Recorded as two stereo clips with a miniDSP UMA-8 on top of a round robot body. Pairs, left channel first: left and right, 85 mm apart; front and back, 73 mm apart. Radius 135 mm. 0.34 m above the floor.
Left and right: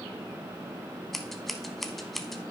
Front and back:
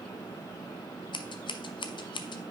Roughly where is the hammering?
No hammering in this recording.